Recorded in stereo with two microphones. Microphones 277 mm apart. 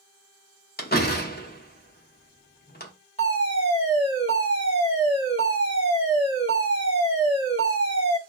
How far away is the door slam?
About 0.6 m.